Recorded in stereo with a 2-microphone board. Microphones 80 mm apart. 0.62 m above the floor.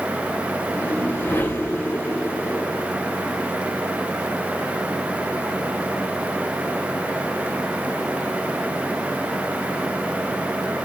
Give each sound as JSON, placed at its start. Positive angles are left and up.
{"t": 0.7, "sound": "a whoosh", "side_deg": 25, "distance_m": 2.0}